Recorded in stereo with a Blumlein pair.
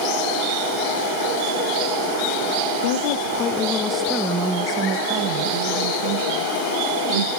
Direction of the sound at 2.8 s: 55° left.